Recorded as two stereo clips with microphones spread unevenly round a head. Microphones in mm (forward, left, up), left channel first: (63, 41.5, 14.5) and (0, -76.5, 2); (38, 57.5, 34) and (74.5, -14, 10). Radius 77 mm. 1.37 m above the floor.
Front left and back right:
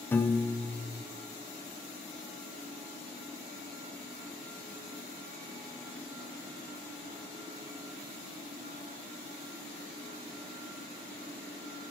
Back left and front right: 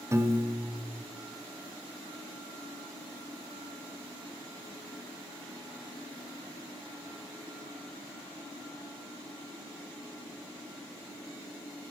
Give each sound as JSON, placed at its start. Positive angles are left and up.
{"t": 0.1, "sound": "a piano", "azimuth_deg": -15, "distance_m": 0.6}